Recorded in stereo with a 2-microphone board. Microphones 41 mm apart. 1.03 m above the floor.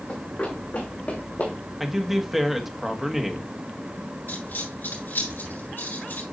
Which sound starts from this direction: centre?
A man speaking, at 1.8 s.